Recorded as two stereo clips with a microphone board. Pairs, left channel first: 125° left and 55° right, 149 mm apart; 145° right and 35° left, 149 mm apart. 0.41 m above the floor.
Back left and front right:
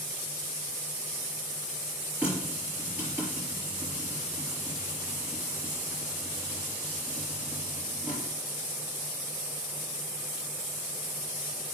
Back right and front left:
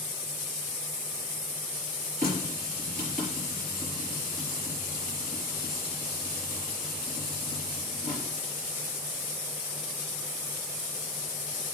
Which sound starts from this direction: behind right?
A running tap, at 2.2 s.